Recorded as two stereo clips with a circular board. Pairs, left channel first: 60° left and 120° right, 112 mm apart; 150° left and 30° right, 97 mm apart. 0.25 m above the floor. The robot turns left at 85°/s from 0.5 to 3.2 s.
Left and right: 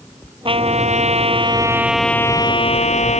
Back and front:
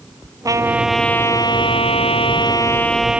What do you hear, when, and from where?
0.5 s a trumpet: 85° right; by 3.2 s 50° left